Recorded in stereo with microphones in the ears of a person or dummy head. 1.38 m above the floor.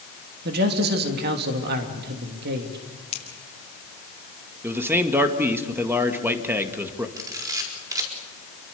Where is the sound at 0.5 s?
55° right (ahead or behind), 3 m.